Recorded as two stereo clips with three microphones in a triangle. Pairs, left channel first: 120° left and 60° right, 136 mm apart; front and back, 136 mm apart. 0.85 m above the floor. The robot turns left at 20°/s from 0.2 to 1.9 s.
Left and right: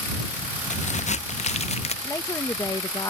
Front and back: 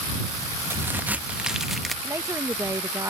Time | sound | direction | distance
0.7 | a crack | 110° left | ?
2.0 | a woman speaking | 145° left | ?